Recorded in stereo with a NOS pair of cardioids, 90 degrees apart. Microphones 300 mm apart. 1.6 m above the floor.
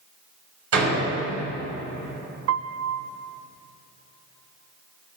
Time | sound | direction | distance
0.7 | a door slam | 50° right | 6.5 m
2.5 | a piano | 55° right | 0.7 m